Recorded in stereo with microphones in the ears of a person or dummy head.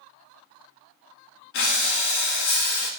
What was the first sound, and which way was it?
Breathing, 60° left (ahead or behind).